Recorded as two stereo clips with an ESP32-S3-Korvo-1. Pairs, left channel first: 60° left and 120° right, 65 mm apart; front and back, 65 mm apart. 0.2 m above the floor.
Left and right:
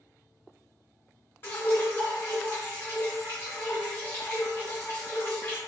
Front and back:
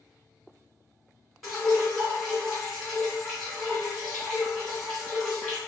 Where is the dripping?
95° left, 1.9 m.